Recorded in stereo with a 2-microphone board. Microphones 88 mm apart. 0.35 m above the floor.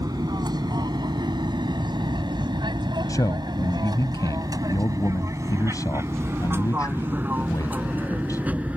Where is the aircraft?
50° right (ahead or behind); by 8.8 s 15° right (ahead or behind).